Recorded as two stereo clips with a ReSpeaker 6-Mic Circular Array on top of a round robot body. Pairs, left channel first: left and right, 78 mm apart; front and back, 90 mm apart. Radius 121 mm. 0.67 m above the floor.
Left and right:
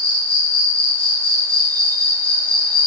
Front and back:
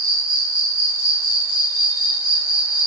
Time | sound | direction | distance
0.0 | an insect | 155° left | 1.3 m